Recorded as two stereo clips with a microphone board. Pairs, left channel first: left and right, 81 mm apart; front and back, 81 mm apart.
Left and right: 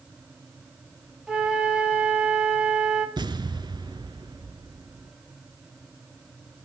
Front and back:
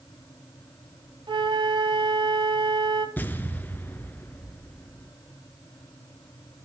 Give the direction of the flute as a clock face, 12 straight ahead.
6 o'clock.